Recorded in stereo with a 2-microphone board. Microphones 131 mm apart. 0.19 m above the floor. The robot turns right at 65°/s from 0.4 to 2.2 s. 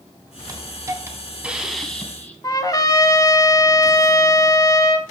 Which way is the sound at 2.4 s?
30° left (ahead or behind).